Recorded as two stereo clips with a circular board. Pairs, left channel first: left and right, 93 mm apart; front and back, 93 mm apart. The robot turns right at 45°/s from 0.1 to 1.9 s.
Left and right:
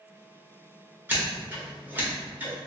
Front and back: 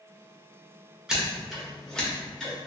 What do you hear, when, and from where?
1.1 s scissors: 110° right, 0.8 m; by 2.7 s 75° right, 0.8 m